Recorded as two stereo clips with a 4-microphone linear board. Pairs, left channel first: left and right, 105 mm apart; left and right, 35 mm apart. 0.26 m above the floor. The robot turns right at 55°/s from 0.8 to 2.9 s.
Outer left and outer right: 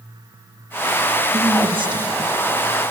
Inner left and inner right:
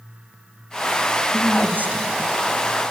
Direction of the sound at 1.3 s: 110° right.